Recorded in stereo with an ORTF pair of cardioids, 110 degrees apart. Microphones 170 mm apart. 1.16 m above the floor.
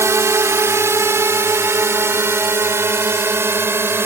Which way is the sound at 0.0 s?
15° right.